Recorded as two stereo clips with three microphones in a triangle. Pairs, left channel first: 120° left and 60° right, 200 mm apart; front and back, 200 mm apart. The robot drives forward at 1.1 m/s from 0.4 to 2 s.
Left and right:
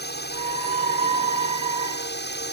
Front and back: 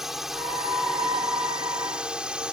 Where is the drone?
90° left; by 2.5 s 95° left.